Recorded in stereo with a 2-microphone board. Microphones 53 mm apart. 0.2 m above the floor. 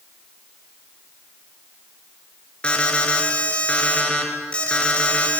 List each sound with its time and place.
2.6 s an alarm: 20° left (ahead or behind), 3.5 m